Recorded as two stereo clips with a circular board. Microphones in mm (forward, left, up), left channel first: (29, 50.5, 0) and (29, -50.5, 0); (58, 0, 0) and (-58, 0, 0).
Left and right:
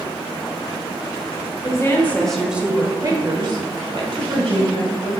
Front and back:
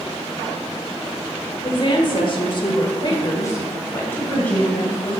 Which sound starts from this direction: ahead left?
A woman speaking, at 1.6 s.